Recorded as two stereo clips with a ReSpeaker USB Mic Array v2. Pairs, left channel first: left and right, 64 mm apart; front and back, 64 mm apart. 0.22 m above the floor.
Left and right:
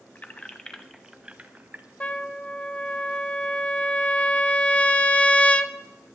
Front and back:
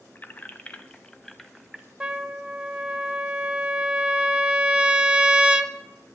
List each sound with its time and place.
0.1 s keys jangling: 40° left, 0.8 m; by 1.9 s 100° right, 0.8 m
2.0 s a trumpet: 125° left, 0.6 m